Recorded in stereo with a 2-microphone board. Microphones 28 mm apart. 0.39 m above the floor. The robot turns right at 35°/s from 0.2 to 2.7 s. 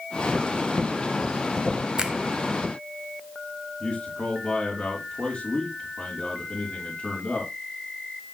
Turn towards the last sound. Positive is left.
turn(degrees=50)  # may be behind; listen again after turning